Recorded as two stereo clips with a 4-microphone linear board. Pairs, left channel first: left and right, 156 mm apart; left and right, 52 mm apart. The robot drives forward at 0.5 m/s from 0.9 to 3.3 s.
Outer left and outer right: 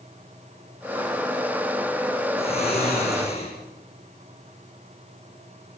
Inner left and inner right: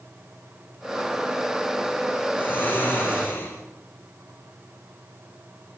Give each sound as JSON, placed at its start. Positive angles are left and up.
{"t": 2.4, "sound": "snoring", "side_deg": 40, "distance_m": 9.0}